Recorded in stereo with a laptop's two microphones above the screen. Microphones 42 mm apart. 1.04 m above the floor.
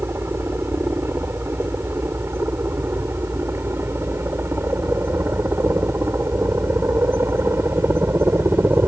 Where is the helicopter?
70° right (ahead or behind).